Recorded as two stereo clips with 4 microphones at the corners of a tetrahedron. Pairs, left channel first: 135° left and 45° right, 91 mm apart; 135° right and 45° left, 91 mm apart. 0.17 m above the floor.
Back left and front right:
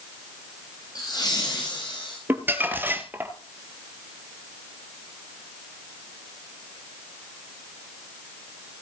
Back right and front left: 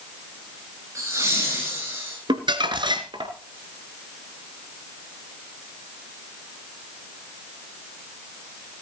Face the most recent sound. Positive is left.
turn(degrees=20)